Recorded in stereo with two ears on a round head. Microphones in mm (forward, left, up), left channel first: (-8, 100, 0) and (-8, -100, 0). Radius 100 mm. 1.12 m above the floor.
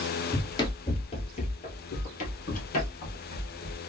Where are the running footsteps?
15° left (ahead or behind), 1.1 m; by 3.8 s 45° left (ahead or behind), 2 m.